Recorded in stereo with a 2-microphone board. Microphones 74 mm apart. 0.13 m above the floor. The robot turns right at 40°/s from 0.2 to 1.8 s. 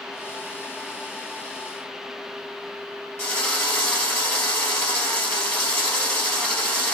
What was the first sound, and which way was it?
A drill, 25° left (ahead or behind).